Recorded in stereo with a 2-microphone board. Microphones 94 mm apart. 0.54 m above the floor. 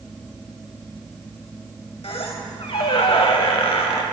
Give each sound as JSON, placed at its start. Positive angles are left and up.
{"t": 2.0, "sound": "a squeak", "side_deg": 75, "distance_m": 0.7}